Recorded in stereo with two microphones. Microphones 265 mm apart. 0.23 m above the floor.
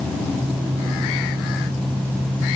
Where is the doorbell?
No doorbell in this recording.